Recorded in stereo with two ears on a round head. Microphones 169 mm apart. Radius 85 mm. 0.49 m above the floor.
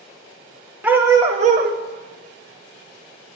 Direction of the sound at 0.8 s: 10° right (ahead or behind).